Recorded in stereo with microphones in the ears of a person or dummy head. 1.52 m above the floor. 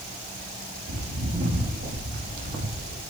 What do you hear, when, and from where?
0.9 s footsteps: 60° right (ahead or behind), 5.5 m